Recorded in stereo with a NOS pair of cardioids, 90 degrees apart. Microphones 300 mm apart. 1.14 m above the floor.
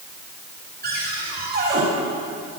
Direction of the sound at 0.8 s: 30° right.